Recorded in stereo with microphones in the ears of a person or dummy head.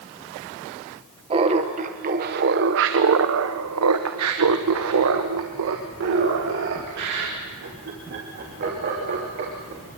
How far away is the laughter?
About 1.7 m.